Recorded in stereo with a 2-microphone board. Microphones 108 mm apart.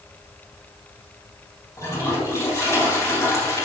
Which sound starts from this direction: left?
A toilet flushing, at 1.8 s.